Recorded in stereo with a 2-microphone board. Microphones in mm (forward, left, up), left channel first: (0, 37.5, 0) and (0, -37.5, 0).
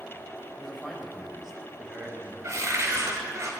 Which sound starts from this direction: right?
A cupboard door, at 2.4 s.